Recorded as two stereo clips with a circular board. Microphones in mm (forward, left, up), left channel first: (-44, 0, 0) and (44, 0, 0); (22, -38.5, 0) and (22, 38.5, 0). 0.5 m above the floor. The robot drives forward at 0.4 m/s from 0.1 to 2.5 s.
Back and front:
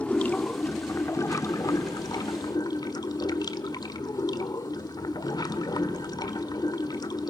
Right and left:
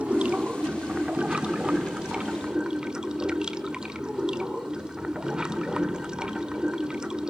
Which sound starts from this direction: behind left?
Running water, at 0.0 s.